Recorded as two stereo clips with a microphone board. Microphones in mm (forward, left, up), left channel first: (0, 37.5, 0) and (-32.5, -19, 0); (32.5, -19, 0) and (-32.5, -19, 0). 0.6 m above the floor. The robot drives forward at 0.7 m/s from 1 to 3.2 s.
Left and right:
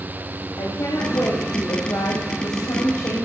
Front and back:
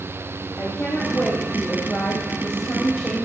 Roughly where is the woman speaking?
Ahead left.